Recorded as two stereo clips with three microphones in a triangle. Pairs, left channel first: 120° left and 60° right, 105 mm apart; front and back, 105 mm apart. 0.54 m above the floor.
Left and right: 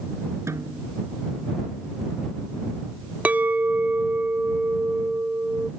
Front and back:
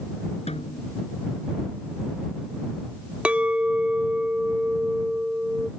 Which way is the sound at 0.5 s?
5° left.